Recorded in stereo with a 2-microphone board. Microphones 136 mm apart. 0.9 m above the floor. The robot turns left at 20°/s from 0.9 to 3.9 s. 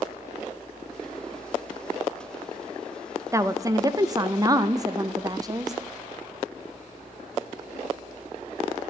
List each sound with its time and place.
3.3 s a woman speaking: 20° right (ahead or behind), 0.5 m; by 5.7 s 25° right (ahead or behind), 0.5 m